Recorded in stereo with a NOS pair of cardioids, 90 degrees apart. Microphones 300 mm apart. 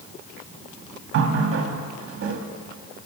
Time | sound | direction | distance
1.1 | a running tap | 50° right | 1.3 m